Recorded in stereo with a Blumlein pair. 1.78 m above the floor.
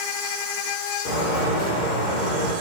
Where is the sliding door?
50° left, 1.1 m.